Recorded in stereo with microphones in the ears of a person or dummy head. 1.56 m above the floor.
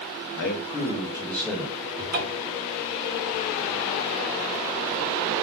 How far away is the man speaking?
About 0.9 m.